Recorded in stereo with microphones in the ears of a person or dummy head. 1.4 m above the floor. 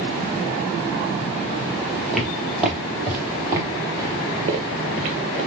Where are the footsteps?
Centre (ahead or behind), 1.9 m; by 5.5 s 45° right (ahead or behind), 1.9 m.